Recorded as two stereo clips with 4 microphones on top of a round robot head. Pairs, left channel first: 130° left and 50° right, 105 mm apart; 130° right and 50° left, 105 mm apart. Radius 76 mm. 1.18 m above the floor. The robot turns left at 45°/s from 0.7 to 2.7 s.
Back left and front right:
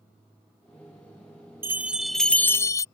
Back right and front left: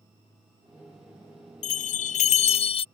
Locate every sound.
1.6 s a bell: 120° right; by 2.9 s 165° right